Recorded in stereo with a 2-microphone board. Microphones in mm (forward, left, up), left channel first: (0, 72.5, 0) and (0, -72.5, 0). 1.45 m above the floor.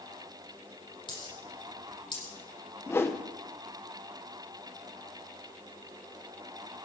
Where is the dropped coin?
35° left (ahead or behind), 6.5 m.